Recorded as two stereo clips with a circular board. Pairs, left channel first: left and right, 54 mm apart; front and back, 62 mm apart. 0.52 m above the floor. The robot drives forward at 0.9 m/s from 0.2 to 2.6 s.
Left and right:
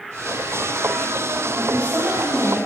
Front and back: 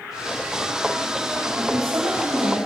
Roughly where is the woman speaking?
Behind right.